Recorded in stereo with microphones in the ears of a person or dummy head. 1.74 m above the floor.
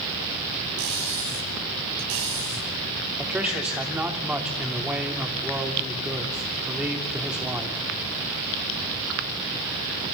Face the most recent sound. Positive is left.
turn(degrees=-5)  # may be behind; listen again after turning